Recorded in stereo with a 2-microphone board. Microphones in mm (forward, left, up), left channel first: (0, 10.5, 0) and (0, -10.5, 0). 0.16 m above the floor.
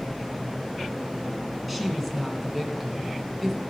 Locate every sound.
1.7 s a woman speaking: centre (ahead or behind), 1.9 m